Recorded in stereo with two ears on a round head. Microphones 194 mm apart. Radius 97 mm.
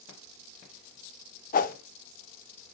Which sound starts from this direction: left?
A whoosh, at 1.5 s.